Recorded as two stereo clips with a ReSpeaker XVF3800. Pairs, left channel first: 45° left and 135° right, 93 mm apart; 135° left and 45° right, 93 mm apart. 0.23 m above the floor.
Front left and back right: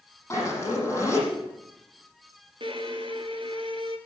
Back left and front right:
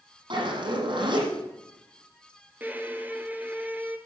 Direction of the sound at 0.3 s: 20° right.